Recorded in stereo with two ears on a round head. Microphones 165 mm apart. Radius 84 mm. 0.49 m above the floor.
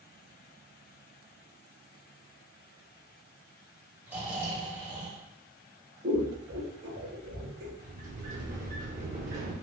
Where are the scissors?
65° right (ahead or behind), 1.6 m.